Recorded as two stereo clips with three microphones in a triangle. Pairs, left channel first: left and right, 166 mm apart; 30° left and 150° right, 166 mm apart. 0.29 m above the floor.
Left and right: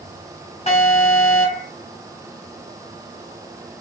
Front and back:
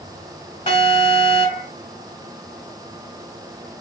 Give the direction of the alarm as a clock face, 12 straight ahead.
10 o'clock.